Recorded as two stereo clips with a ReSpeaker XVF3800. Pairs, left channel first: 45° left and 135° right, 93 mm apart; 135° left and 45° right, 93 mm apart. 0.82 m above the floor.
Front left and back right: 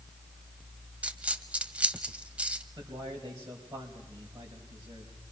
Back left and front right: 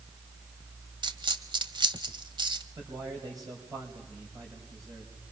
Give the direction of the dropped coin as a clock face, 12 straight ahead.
2 o'clock.